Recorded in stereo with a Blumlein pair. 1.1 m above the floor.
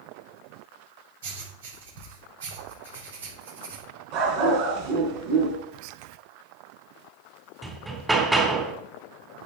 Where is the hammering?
10° right, 3 m.